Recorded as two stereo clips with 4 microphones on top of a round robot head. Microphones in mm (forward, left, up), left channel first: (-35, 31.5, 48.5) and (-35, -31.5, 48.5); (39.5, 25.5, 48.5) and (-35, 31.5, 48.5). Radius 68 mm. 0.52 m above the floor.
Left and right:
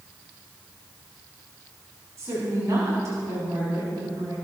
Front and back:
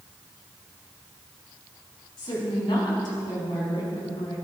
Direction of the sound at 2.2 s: 40° right.